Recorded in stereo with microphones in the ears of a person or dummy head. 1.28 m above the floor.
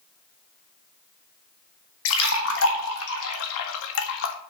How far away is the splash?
About 1.5 m.